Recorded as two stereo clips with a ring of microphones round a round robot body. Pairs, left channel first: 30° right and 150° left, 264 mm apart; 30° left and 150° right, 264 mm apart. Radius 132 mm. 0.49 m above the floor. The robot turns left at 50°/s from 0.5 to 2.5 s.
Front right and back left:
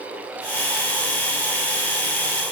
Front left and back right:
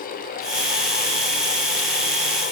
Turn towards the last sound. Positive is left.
No sound to turn to.